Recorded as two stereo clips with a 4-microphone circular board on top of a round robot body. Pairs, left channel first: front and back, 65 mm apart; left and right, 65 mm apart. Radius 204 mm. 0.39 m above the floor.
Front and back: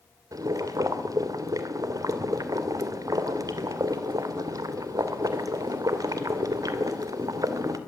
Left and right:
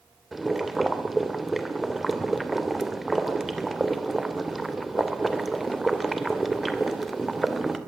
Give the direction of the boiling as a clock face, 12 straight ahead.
6 o'clock.